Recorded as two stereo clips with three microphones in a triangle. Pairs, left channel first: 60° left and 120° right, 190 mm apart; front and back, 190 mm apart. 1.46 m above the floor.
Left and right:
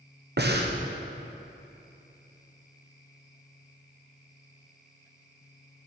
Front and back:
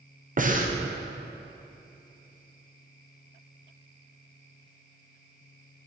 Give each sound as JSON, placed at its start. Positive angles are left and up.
{"t": 0.4, "sound": "breathing", "azimuth_deg": -140, "distance_m": 0.9}